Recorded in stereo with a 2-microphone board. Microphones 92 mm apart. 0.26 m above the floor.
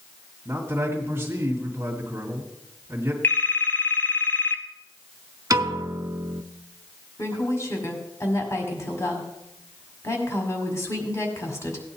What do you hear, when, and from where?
0.5 s a man speaking: 25° right (ahead or behind), 2 m
3.2 s a phone ringing: 20° left (ahead or behind), 1.0 m
5.5 s a piano: 40° right (ahead or behind), 0.5 m
7.2 s a woman speaking: 35° left (ahead or behind), 1.8 m